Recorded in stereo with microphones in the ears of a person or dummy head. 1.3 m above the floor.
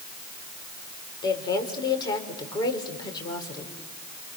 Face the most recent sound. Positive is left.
turn(degrees=25)  # may be behind; listen again after turning